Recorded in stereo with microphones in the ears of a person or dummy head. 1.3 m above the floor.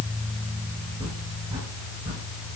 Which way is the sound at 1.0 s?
25° right (ahead or behind).